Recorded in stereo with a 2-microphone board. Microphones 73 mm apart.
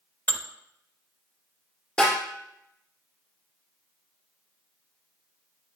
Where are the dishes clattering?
25° left (ahead or behind), 0.8 m.